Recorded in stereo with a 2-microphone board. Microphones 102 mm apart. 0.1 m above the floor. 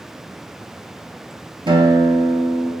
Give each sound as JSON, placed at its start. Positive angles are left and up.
{"t": 1.7, "sound": "a guitar", "side_deg": -55, "distance_m": 0.7}